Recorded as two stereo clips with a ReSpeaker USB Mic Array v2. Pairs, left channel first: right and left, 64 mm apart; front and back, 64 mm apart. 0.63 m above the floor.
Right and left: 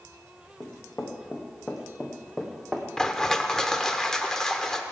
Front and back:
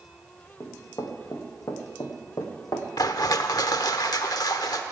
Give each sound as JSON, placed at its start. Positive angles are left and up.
{"t": 0.6, "sound": "running footsteps", "azimuth_deg": -30, "distance_m": 2.5}
{"t": 3.0, "sound": "crushing", "azimuth_deg": -10, "distance_m": 0.8}